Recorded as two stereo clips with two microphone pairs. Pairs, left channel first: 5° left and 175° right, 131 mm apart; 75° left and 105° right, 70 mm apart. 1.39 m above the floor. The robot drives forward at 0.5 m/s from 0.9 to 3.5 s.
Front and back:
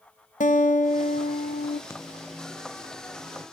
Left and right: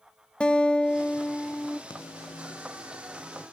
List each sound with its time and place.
0.4 s a guitar: straight ahead, 0.9 m
1.9 s a microwave: 75° left, 0.6 m; by 3.5 s 135° left, 0.8 m